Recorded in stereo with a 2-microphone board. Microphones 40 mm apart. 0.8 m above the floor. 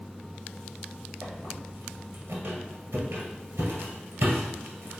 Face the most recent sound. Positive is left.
turn(degrees=-60)  # may be behind; listen again after turning